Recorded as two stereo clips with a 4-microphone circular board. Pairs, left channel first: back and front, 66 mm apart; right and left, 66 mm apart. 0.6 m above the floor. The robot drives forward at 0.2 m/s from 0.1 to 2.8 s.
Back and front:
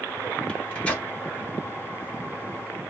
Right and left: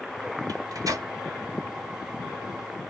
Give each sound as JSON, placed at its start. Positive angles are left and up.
{"t": 0.5, "sound": "a microwave", "azimuth_deg": 110, "distance_m": 1.8}